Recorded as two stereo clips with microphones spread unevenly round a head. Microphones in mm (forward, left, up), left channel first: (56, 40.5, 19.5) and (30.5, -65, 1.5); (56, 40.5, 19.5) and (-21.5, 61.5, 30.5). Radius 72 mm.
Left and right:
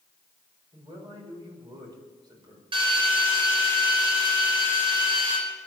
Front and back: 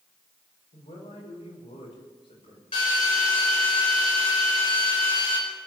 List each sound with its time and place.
0.7 s a man speaking: 50° right, 6 m
2.7 s a drill: 60° right, 5 m